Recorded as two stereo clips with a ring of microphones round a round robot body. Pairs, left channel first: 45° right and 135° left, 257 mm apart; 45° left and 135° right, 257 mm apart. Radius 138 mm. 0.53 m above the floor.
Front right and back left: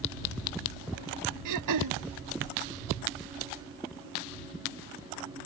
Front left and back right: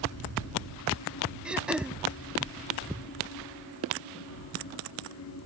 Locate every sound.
1.4 s throat clearing: 140° left